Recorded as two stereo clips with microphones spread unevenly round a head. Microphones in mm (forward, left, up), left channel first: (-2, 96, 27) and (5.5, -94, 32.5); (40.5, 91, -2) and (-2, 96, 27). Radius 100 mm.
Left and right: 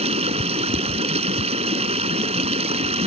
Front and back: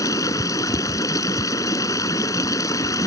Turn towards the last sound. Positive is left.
turn(degrees=-30)